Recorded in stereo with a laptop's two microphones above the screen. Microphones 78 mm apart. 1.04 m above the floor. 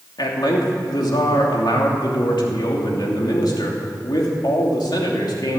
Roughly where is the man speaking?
Left.